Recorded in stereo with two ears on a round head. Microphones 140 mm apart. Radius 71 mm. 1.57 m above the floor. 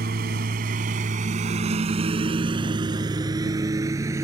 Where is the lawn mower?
65° right (ahead or behind); by 4.2 s 20° right (ahead or behind).